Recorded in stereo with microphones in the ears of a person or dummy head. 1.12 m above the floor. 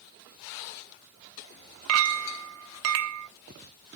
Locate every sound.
1.9 s a clink: 85° right, 0.8 m